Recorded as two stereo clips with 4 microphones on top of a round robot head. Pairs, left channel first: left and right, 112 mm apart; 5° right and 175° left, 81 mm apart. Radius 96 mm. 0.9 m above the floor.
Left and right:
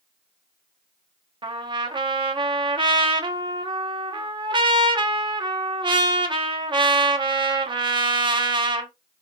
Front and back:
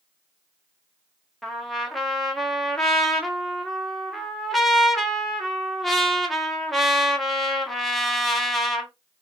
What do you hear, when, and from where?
1.4 s a trumpet: 95° right, 1.2 m